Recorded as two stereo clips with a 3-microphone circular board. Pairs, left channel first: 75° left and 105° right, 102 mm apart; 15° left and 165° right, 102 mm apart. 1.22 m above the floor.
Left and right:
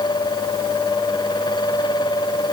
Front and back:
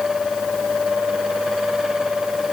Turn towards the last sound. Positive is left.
No sound to turn to.